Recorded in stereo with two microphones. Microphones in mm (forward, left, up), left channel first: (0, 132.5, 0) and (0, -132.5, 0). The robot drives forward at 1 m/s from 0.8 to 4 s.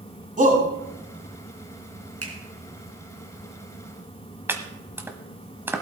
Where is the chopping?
10° right (ahead or behind), 1.1 m.